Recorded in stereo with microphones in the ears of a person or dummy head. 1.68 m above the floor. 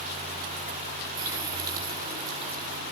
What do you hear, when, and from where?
1.2 s a running tap: 20° right (ahead or behind), 5 m